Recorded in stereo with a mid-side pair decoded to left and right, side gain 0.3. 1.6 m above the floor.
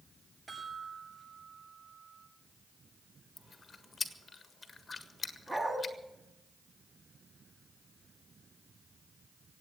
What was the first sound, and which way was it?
A chime, 55° right.